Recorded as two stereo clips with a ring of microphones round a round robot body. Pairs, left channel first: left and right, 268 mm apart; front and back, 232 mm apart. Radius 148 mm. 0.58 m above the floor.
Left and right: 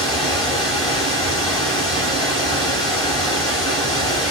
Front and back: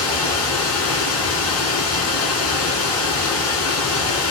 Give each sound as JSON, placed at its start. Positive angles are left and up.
{"t": 0.0, "sound": "running water", "azimuth_deg": 15, "distance_m": 1.4}